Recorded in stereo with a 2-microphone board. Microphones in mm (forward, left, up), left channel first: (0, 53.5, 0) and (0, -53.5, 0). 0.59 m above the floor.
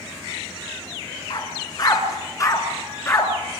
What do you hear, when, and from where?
1.3 s a dog barking: 40° left (ahead or behind), 2.5 m; by 3.3 s 25° left (ahead or behind), 3 m